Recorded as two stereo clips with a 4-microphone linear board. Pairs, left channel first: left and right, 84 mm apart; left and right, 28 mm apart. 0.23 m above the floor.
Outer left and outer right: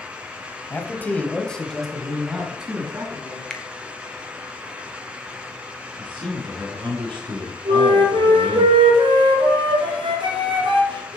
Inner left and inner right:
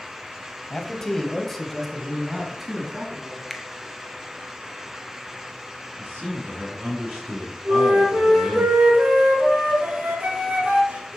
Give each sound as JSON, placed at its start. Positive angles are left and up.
{"t": 0.7, "sound": "a man speaking", "side_deg": 20, "distance_m": 1.1}
{"t": 3.5, "sound": "a finger snap", "side_deg": 10, "distance_m": 0.8}
{"t": 6.0, "sound": "a man speaking", "side_deg": -70, "distance_m": 4.5}
{"t": 7.7, "sound": "a flute", "side_deg": -75, "distance_m": 1.7}